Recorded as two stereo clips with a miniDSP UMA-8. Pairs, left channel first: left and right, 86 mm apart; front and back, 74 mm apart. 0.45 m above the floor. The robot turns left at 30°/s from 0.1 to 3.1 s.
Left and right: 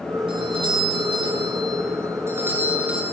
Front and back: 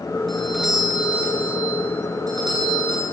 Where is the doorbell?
85° right, 8 m; by 3.0 s 170° right, 8 m.